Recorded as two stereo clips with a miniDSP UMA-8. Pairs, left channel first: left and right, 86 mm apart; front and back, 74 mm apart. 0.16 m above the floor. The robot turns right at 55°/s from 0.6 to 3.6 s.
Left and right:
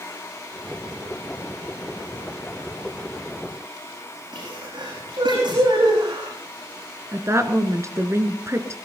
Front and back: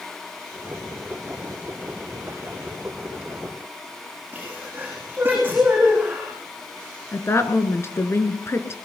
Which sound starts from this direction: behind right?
A sneeze, at 4.3 s.